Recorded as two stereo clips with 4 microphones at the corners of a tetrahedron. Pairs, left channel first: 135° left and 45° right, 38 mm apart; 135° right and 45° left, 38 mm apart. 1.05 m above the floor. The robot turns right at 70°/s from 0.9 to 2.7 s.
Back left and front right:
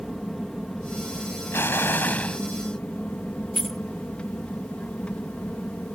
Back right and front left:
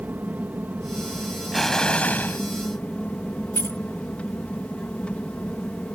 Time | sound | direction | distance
0.0 | an aircraft | 55° left | ?
1.5 | an explosion | 135° left | ?
3.5 | keys jangling | 140° right | ?